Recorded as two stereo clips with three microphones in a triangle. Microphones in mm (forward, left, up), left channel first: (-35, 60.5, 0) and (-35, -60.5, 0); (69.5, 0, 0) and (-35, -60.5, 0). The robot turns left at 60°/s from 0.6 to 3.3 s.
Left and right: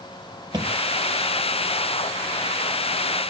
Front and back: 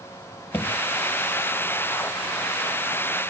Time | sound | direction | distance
0.5 | a thud | 40° right | 1.0 m